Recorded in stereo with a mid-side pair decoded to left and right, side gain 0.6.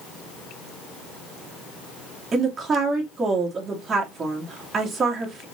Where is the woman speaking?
30° right, 2.5 m.